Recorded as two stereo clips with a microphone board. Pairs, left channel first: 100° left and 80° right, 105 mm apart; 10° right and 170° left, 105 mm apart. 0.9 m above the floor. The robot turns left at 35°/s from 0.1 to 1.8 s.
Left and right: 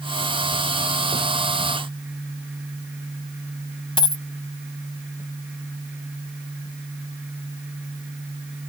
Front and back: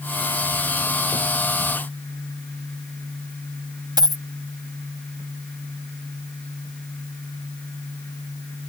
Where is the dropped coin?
130° left.